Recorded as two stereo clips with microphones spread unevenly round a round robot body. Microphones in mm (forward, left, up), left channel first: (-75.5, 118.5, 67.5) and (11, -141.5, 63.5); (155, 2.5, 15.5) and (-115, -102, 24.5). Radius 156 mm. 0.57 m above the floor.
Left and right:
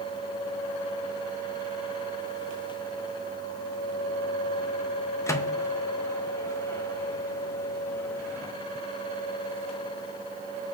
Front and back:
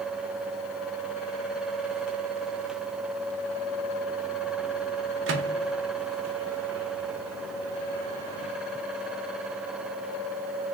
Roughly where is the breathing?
No breathing in this recording.